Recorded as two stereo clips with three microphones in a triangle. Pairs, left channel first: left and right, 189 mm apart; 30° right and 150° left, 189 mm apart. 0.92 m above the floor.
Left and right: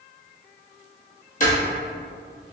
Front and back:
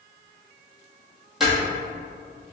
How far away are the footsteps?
About 1.4 m.